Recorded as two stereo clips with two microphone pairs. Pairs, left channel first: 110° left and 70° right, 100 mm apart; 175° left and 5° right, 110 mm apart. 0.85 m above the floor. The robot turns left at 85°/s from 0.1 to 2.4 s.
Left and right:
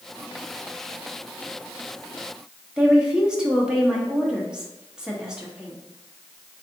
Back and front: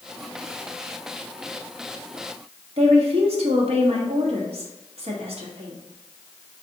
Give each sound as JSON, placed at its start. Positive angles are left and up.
{"t": 2.8, "sound": "a woman speaking", "azimuth_deg": 10, "distance_m": 1.1}